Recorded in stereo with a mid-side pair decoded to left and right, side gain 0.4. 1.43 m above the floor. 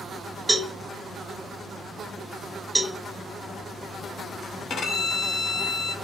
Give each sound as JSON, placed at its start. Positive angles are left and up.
{"t": 0.5, "sound": "a cowbell", "azimuth_deg": -10, "distance_m": 0.8}
{"t": 2.8, "sound": "a cowbell", "azimuth_deg": -10, "distance_m": 0.8}
{"t": 4.7, "sound": "a violin", "azimuth_deg": 65, "distance_m": 0.7}